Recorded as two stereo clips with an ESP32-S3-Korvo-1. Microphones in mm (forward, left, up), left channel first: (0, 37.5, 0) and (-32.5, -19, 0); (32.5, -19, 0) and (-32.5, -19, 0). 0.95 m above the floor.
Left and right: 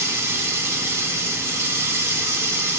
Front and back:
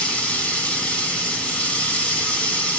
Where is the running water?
75° right, 2 m.